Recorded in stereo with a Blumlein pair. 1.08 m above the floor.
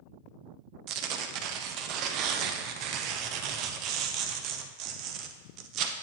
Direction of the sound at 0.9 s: 40° right.